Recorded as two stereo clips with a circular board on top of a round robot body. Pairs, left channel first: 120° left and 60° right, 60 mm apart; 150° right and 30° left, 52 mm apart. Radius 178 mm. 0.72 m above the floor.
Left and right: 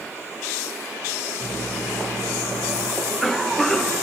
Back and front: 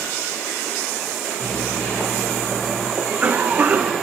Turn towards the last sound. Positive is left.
turn(degrees=40)